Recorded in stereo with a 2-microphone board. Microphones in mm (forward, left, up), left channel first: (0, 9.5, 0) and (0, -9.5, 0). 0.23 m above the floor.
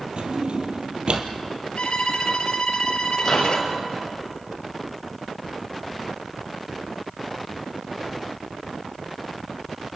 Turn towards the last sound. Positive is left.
turn(degrees=10)  # may be behind; listen again after turning